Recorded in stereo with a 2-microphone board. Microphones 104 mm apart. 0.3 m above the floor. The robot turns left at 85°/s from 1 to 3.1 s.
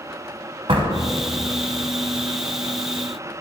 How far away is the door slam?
About 1.5 m.